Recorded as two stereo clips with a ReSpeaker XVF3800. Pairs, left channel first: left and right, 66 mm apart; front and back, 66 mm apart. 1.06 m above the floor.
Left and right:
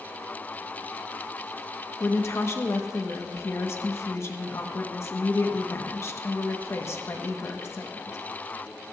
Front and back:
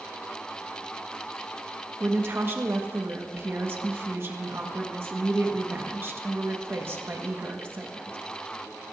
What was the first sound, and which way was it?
A woman speaking, 130° left.